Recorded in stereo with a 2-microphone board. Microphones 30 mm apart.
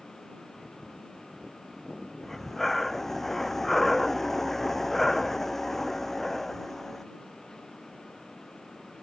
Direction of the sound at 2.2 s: 10° left (ahead or behind).